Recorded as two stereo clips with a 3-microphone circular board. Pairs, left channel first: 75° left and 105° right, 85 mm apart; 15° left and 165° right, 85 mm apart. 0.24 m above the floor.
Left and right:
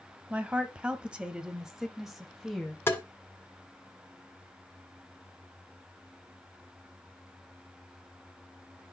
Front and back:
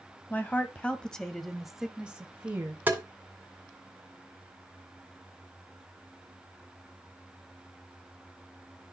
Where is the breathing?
I don't hear breathing.